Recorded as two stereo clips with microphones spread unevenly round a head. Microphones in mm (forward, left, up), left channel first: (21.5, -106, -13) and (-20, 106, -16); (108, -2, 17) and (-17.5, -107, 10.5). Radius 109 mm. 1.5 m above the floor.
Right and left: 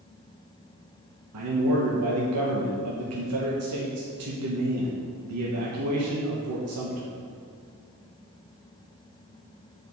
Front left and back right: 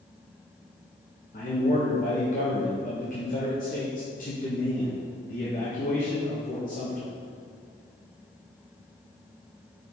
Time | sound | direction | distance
1.3 | a man speaking | 95° left | 1.2 m